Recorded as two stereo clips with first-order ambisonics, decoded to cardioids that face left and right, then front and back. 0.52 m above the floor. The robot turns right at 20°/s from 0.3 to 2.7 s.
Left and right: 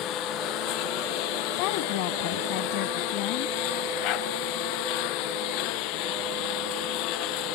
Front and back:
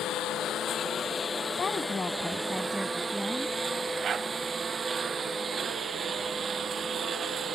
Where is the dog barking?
120° left.